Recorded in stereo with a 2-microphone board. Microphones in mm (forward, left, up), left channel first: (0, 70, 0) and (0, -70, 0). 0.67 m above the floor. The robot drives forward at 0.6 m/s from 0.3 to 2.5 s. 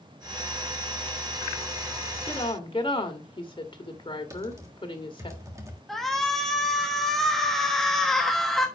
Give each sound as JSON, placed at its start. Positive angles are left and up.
{"t": 2.2, "sound": "a woman speaking", "side_deg": 35, "distance_m": 1.8}
{"t": 4.3, "sound": "typing on a keyboard", "side_deg": -20, "distance_m": 1.6}
{"t": 5.9, "sound": "a shout", "side_deg": 0, "distance_m": 1.0}